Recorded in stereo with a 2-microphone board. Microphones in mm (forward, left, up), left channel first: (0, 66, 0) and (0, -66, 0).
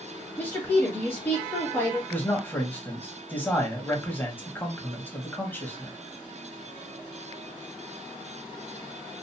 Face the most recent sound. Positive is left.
turn(degrees=15)  # may be behind; listen again after turning